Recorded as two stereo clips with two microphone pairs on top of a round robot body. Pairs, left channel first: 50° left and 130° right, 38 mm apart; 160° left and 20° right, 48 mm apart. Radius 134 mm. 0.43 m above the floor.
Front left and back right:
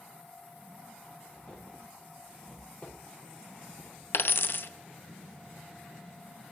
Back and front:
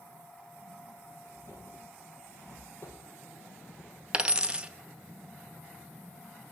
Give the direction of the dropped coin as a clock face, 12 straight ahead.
11 o'clock.